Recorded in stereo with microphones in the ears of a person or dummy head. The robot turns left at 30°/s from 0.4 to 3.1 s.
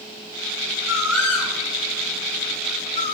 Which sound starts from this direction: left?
A bird, at 0.9 s.